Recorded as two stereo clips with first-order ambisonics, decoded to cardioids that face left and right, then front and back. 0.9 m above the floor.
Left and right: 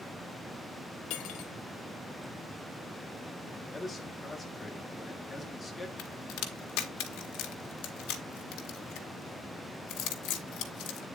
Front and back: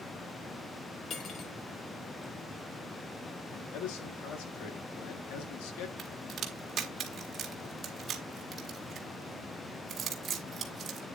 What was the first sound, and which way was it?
Cutlery clinking, 60° left.